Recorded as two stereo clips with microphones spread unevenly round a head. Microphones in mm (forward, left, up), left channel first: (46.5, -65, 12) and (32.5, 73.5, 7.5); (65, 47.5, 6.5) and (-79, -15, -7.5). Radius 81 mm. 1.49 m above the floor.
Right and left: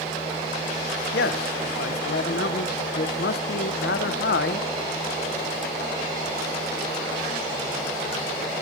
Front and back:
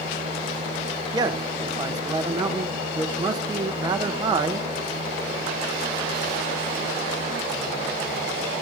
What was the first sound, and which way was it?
A man speaking, 85° right.